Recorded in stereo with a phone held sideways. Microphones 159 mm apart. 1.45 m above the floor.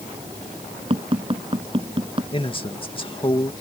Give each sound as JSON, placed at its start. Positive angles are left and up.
{"t": 0.9, "sound": "tapping", "side_deg": -35}
{"t": 2.3, "sound": "a man speaking", "side_deg": 35}